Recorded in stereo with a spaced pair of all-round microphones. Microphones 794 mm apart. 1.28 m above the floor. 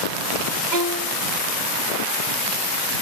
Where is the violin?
65° right (ahead or behind).